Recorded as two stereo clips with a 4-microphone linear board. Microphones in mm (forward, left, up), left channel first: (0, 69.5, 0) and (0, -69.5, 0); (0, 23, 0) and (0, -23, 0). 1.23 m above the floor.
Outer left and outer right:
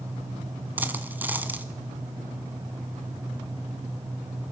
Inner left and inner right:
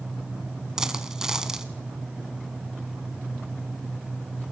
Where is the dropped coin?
15° right (ahead or behind), 1.2 m.